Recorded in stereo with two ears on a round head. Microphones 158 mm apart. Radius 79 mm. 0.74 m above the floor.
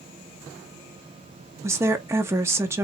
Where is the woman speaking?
15° right (ahead or behind), 0.8 m.